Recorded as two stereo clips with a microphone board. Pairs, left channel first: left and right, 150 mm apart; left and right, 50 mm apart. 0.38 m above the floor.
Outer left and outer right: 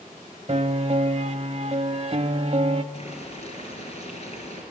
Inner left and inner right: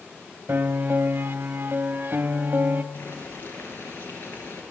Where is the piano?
50° right (ahead or behind), 0.6 m.